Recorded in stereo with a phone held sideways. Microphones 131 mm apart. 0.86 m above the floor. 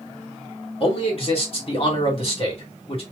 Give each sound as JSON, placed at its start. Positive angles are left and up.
{"t": 0.8, "sound": "a man speaking", "side_deg": 45, "distance_m": 2.0}